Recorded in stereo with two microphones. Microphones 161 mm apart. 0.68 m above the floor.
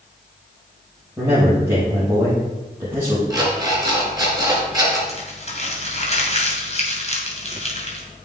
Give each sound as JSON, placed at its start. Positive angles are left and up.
{"t": 1.2, "sound": "a man speaking", "side_deg": -15, "distance_m": 4.5}
{"t": 3.3, "sound": "an alarm clock", "side_deg": -25, "distance_m": 4.0}
{"t": 5.1, "sound": "crumpling", "side_deg": 45, "distance_m": 2.5}